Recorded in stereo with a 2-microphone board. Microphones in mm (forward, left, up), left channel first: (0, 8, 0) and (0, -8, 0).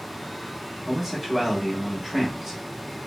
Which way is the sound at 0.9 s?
20° right (ahead or behind).